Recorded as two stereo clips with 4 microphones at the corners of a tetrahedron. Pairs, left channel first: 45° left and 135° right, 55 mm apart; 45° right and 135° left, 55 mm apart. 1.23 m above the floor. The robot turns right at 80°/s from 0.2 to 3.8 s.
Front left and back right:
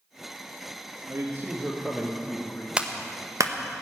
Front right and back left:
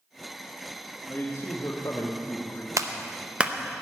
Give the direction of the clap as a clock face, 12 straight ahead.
7 o'clock.